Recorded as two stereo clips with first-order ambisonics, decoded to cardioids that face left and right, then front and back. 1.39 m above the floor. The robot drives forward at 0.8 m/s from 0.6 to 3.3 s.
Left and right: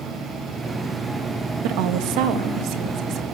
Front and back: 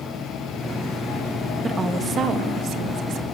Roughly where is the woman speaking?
Right.